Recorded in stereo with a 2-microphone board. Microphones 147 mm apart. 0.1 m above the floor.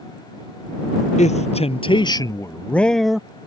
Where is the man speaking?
55° left (ahead or behind); by 3.3 s 5° right (ahead or behind).